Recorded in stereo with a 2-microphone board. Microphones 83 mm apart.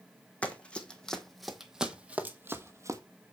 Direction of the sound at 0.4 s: 15° left (ahead or behind).